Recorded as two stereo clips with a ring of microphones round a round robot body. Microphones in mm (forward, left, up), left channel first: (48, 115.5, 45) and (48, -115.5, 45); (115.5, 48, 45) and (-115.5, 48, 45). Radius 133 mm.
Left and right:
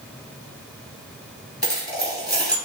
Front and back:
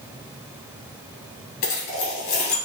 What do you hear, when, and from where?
1.6 s a dropped coin: 15° right, 2 m